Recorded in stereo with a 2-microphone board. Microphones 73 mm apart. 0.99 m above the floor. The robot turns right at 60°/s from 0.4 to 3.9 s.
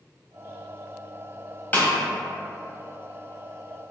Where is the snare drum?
25° left (ahead or behind), 0.9 m; by 1.9 s 20° left (ahead or behind), 0.9 m.